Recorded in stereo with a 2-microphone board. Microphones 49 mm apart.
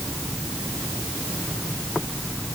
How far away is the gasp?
No gasp in this recording.